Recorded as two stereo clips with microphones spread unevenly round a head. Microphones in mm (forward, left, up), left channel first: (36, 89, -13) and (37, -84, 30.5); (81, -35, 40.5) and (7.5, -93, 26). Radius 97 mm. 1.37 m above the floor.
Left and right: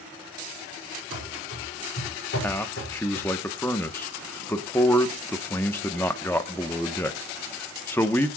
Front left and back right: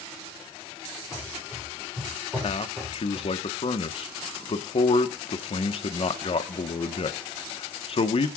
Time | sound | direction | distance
1.1 | running footsteps | 130° left | 5 m
2.4 | a man speaking | 10° left | 1.3 m